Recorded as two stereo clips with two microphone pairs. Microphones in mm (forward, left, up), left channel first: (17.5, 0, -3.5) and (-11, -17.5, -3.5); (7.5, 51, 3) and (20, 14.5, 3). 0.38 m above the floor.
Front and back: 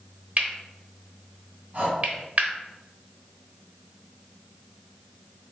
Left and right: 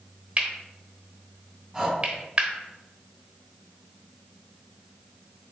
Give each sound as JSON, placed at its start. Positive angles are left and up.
{"t": 0.4, "sound": "cutlery clinking", "azimuth_deg": -125, "distance_m": 0.9}
{"t": 1.7, "sound": "breathing", "azimuth_deg": -155, "distance_m": 1.8}